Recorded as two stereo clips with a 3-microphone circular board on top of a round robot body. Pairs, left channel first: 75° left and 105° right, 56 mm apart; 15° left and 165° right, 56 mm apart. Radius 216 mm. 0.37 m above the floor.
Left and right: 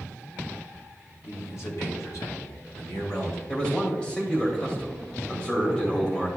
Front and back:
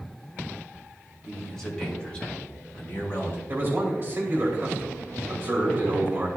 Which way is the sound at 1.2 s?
105° left.